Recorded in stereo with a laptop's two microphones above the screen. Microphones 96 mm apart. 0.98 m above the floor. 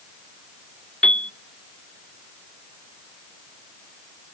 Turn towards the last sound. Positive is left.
turn(degrees=10)  # may be behind; listen again after turning